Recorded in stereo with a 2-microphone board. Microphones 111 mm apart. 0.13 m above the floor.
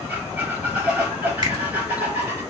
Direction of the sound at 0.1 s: 15° right (ahead or behind).